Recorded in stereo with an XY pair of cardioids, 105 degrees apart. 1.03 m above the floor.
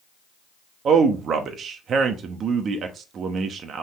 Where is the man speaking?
55° right, 1.2 m.